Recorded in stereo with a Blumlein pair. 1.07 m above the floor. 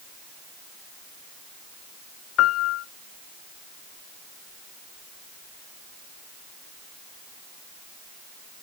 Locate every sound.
2.4 s a piano: 30° left, 0.5 m